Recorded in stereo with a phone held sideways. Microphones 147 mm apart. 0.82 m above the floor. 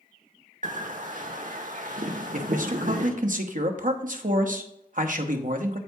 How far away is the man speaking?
About 0.9 m.